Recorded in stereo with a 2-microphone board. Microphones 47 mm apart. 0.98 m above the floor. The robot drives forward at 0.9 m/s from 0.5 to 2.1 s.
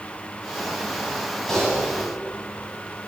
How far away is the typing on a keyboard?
About 9 m.